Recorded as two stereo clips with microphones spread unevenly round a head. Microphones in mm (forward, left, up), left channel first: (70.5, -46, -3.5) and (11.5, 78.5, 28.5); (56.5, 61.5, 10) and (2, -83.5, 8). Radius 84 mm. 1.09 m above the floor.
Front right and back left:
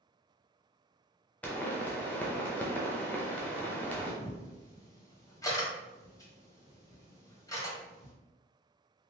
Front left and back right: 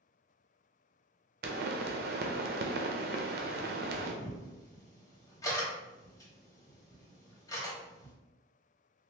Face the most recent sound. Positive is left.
turn(degrees=0)